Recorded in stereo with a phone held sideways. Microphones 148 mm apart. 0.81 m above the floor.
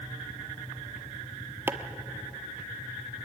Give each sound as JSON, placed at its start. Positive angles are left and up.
{"t": 1.7, "sound": "chopping", "side_deg": -15, "distance_m": 1.2}